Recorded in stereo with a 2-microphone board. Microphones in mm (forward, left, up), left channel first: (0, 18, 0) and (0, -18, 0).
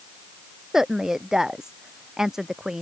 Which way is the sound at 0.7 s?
15° right (ahead or behind).